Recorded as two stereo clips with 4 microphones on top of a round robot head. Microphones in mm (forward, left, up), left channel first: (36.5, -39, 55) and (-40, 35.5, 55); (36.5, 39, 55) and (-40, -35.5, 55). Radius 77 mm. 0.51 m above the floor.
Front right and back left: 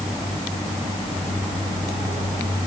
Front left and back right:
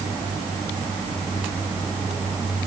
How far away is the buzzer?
I don't hear a buzzer.